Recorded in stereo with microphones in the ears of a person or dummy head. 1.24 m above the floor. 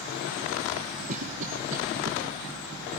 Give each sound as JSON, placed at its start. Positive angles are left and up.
{"t": 1.1, "sound": "a cough", "side_deg": -40, "distance_m": 1.3}